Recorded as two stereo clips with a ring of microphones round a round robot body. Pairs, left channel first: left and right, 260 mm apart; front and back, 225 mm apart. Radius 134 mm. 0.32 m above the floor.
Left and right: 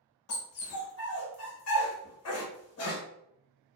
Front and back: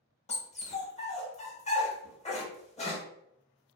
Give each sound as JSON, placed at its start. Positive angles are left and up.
{"t": 0.3, "sound": "a dog barking", "azimuth_deg": 60, "distance_m": 0.8}